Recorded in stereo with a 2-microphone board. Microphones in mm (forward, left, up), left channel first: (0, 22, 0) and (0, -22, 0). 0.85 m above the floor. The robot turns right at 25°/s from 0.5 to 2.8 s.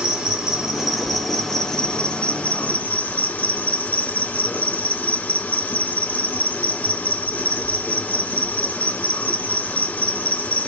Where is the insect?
15° right, 2 m; by 10.7 s 40° left, 2 m.